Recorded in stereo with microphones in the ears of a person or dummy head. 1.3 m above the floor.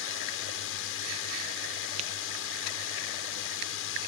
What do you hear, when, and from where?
0.0 s a drone: 70° left (ahead or behind)
2.0 s tapping: 35° right (ahead or behind)